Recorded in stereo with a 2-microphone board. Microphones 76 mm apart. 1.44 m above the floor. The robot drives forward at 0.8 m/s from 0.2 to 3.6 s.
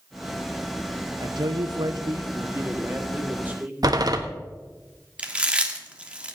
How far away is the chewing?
About 1.4 m.